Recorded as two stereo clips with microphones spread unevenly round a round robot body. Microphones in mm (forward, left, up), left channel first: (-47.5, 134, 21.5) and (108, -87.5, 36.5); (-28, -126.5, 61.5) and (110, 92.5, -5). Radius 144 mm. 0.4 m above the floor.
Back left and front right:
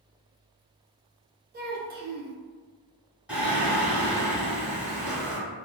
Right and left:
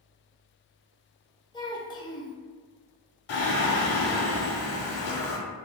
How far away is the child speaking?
About 0.5 m.